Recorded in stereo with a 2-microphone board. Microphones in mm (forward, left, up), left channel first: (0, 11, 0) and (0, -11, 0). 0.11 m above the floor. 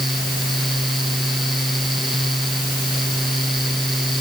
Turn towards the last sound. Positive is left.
No sound to turn to.